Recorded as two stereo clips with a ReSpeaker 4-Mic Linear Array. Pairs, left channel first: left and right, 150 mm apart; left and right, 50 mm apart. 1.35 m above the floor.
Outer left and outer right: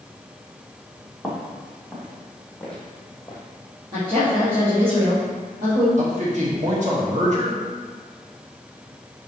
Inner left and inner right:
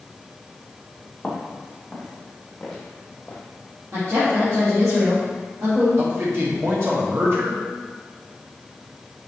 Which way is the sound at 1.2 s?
20° right (ahead or behind).